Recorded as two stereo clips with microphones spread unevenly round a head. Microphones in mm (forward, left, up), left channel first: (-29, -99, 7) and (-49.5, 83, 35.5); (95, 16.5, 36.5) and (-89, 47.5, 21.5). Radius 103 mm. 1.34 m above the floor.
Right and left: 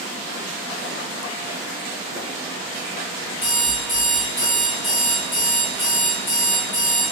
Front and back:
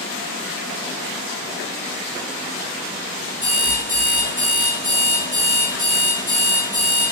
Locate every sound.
3.4 s an alarm clock: 65° right, 1.4 m